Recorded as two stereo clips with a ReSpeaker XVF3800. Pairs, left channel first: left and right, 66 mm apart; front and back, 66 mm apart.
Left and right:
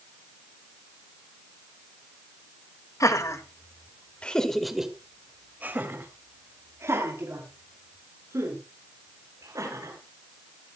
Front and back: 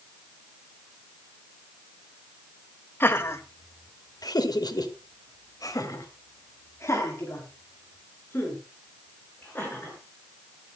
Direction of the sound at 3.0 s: 55° left.